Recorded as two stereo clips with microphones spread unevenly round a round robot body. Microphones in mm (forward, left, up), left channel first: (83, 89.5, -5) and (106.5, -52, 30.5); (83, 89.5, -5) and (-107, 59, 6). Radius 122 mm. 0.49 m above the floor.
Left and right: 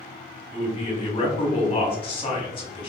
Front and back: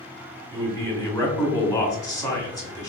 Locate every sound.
0.5 s a man speaking: 75° left, 1.1 m